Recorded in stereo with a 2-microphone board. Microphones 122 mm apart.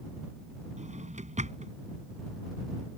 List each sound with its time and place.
0.8 s a drawer: 80° right